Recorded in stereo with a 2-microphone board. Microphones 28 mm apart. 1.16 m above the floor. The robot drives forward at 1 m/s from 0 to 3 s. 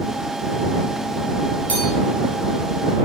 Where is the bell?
60° left (ahead or behind), 3 m.